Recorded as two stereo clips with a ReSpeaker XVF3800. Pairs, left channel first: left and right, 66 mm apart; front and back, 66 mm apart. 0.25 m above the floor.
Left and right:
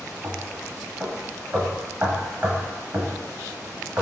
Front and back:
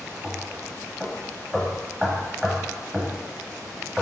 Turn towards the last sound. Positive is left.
turn(degrees=-110)